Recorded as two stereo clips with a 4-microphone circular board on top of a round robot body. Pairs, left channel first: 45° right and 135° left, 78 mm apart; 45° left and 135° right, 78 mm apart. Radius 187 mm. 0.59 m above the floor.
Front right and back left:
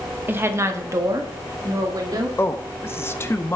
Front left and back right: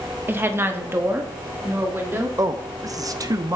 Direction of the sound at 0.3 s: Straight behind.